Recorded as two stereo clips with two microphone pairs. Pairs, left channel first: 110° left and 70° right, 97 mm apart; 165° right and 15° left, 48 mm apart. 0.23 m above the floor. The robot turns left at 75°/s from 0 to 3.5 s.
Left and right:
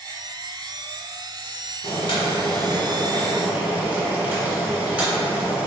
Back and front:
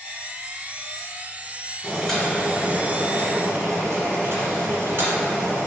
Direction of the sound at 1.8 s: 120° left.